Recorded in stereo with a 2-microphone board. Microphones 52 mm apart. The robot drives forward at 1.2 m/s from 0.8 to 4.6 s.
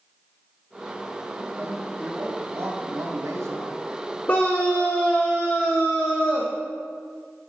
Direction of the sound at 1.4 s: 40° right (ahead or behind).